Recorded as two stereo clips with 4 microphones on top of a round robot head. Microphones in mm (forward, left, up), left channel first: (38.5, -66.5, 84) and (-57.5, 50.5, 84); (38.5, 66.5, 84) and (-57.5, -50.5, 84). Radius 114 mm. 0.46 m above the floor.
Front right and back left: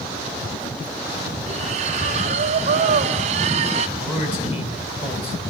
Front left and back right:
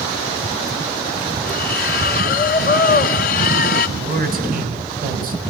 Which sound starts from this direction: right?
A man speaking, at 4.0 s.